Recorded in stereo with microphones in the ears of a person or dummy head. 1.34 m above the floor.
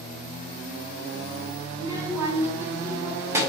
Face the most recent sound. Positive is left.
turn(degrees=-15)  # may be behind; listen again after turning